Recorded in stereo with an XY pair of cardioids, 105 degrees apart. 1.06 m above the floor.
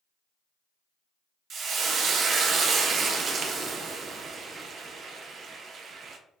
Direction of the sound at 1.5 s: 55° right.